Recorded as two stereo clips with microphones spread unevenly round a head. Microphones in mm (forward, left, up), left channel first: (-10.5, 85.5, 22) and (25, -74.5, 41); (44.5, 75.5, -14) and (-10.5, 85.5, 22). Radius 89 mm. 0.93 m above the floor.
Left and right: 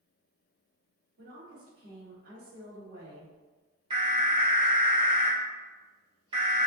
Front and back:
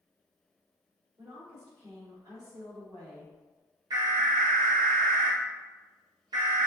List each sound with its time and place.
1.2 s a woman speaking: 120° right, 1.9 m
3.9 s an alarm: 135° right, 1.3 m